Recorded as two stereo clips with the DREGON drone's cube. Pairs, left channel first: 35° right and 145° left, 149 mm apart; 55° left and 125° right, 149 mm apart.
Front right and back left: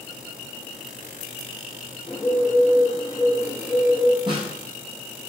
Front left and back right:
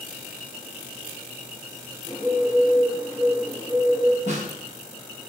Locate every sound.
2.1 s a bird: 60° right, 1.8 m
4.3 s a snare drum: 160° right, 0.9 m